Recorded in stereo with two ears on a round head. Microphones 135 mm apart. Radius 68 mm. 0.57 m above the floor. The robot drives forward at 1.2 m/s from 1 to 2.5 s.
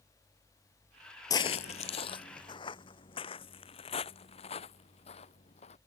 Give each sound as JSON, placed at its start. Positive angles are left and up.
{"t": 1.3, "sound": "footsteps", "side_deg": 25}